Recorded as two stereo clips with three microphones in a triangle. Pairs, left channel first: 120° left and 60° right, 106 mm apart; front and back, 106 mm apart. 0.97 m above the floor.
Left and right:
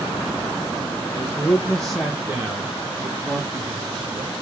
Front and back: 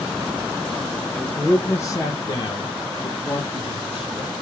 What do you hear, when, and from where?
1.1 s a man speaking: 75° left, 0.8 m; by 4.3 s 25° right, 1.6 m